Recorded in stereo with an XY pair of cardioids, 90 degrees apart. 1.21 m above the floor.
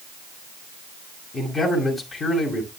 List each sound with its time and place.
1.3 s a man speaking: 50° left, 6 m